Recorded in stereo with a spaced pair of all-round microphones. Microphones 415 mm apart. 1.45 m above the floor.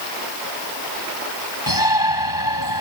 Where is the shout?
55° left (ahead or behind).